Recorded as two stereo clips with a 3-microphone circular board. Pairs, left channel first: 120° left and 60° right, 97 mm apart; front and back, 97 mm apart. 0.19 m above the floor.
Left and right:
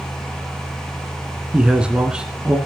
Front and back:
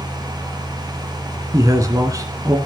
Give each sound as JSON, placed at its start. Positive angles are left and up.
{"t": 1.5, "sound": "a man speaking", "azimuth_deg": -135, "distance_m": 1.6}